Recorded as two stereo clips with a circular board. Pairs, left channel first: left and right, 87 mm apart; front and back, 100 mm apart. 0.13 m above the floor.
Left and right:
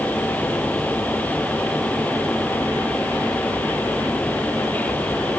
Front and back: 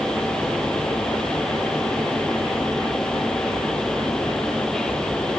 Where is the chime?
No chime in this recording.